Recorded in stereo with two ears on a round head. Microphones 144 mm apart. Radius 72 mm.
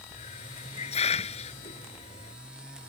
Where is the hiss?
40° left (ahead or behind).